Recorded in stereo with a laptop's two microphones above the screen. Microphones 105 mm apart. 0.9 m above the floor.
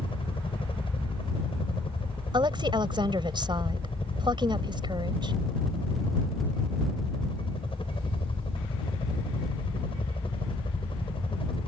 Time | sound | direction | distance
0.0 | a helicopter | 55° left (ahead or behind) | ?
2.3 | a woman speaking | 45° right (ahead or behind) | ?